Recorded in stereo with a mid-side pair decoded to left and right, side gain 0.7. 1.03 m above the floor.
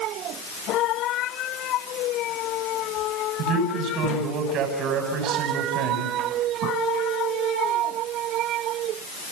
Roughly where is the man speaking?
Ahead right.